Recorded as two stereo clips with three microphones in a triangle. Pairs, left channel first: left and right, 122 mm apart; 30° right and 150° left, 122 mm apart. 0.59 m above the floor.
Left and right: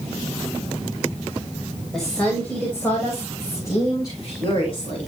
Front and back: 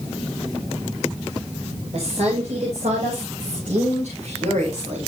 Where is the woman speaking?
Straight behind, 3 m; by 5.1 s 135° left, 4.5 m.